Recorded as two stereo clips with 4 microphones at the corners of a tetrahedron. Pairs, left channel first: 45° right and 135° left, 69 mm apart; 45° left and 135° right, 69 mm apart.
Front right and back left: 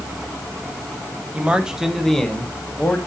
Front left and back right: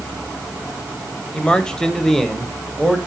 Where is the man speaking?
105° left, 1.1 m; by 3.0 s 50° right, 1.2 m.